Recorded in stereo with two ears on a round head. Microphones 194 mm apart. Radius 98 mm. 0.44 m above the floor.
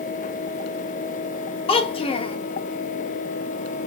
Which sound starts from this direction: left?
A child speaking, at 1.7 s.